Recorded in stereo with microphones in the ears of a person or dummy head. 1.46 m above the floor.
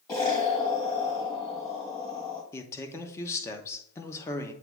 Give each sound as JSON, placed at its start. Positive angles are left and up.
{"t": 0.1, "sound": "an explosion", "side_deg": 25, "distance_m": 1.7}
{"t": 2.5, "sound": "a man speaking", "side_deg": 15, "distance_m": 1.0}